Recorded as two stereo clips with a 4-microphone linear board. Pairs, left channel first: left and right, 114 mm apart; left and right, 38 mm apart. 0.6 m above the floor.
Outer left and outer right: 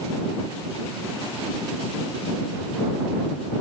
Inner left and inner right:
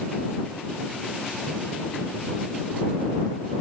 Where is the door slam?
I don't hear a door slam.